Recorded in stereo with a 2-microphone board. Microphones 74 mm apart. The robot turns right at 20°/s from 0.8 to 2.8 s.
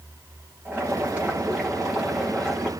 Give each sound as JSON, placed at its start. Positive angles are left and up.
{"t": 0.7, "sound": "boiling", "azimuth_deg": -25, "distance_m": 9.5}